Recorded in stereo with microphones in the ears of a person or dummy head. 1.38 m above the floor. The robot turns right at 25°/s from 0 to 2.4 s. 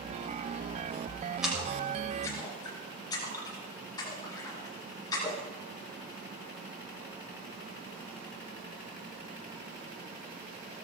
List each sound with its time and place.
1.4 s a splash: 5° right (ahead or behind), 6 m; by 5.4 s 20° left (ahead or behind), 6 m